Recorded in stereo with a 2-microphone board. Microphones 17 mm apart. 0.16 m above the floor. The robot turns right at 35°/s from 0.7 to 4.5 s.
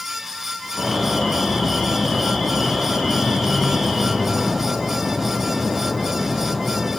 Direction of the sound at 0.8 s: Straight ahead.